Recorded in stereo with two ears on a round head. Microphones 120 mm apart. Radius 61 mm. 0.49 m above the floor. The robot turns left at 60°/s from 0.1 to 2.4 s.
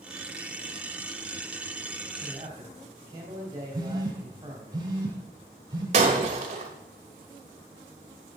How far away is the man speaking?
About 3 m.